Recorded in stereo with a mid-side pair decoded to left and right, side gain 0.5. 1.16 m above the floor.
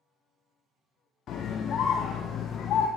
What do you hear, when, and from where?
1.3 s a scream: 55° left, 0.5 m